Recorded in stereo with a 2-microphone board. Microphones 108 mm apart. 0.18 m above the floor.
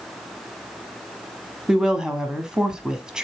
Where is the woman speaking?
5° right (ahead or behind), 1.0 m.